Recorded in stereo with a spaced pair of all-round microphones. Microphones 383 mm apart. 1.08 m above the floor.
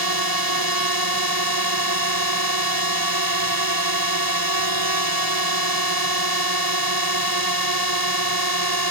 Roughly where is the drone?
Right.